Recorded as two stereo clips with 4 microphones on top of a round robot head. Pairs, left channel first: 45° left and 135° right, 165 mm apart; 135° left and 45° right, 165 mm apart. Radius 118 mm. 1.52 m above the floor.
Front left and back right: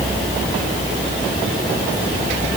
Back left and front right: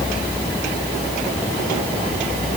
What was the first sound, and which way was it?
Only background noise.